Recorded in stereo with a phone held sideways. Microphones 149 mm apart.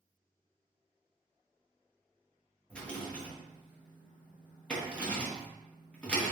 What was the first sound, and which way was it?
A rattle, 10° left (ahead or behind).